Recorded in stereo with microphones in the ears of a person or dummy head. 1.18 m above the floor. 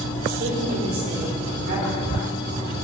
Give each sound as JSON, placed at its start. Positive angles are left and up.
{"t": 0.4, "sound": "a woman speaking", "side_deg": -50, "distance_m": 5.0}